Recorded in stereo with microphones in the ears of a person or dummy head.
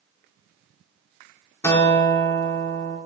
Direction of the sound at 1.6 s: 20° left (ahead or behind).